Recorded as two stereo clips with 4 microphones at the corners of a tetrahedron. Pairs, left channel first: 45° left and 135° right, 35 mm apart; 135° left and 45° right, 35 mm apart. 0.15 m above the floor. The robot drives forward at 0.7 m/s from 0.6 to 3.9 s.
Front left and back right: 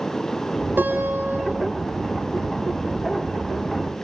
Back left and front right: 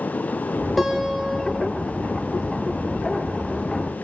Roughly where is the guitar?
Behind right.